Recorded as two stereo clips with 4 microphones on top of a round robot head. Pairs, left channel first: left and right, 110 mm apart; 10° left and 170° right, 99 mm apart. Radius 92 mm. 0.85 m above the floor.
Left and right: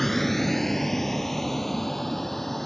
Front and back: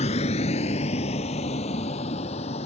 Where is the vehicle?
Straight ahead.